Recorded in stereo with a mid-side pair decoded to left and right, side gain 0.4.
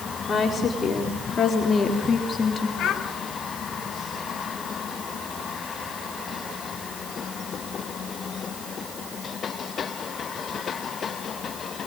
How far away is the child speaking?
About 4.5 m.